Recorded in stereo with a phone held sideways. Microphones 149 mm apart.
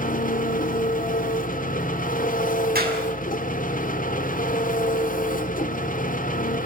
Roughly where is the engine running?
Left.